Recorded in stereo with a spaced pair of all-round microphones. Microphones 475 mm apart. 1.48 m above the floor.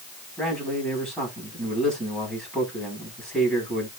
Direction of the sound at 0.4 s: Centre (ahead or behind).